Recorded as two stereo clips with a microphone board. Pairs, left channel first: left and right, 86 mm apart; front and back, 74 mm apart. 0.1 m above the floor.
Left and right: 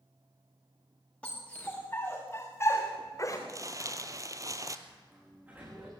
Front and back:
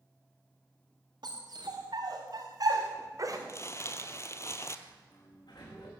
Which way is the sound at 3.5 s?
45° right.